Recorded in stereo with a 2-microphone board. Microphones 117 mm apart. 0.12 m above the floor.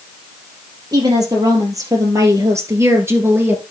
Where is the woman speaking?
35° right (ahead or behind), 3.5 m; by 3.6 s 20° right (ahead or behind), 2.0 m.